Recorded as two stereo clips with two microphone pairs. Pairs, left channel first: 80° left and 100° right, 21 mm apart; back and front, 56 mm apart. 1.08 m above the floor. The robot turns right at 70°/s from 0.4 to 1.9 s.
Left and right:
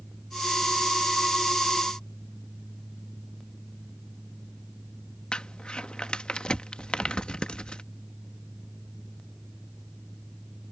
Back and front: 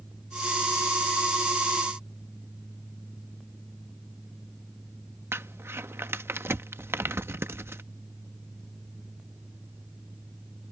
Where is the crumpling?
40° left.